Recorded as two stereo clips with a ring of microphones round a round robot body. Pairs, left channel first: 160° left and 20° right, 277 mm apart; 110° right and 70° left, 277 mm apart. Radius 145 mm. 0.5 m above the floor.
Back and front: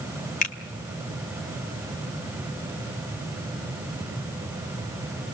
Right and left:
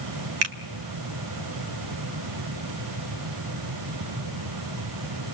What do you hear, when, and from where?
0.4 s a finger snap: 95° left, 2.0 m